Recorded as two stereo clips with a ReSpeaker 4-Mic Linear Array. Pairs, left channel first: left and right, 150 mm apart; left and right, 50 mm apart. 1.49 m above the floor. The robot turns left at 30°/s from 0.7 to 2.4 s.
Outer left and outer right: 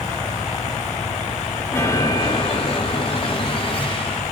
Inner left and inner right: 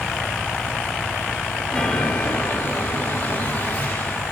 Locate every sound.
1.7 s a chime: 15° left (ahead or behind), 2.5 m; by 4.2 s 35° left (ahead or behind), 2.5 m